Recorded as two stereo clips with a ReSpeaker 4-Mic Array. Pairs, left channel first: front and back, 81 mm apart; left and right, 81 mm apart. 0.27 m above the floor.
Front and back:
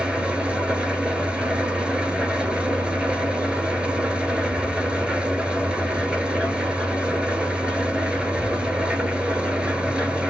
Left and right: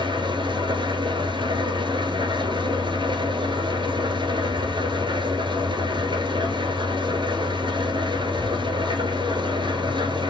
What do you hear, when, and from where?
0.0 s an engine running: 100° right, 1.1 m